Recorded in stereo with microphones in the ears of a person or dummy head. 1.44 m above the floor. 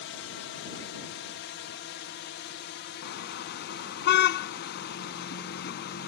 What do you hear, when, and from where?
0.0 s a drone: 55° left (ahead or behind); by 6.1 s 50° left (ahead or behind)
3.0 s a car horn: 55° left (ahead or behind)